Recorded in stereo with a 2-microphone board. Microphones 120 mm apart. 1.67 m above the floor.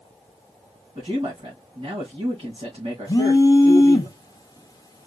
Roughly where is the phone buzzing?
Left.